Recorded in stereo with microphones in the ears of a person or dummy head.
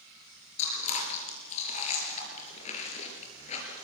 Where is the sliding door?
I don't hear a sliding door.